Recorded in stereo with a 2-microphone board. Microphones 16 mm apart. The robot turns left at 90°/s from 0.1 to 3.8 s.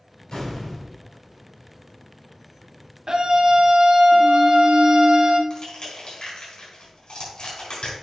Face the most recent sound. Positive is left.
turn(degrees=70)  # may be behind; listen again after turning